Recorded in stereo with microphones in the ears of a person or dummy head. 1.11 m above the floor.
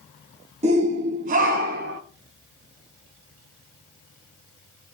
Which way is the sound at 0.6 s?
35° right (ahead or behind).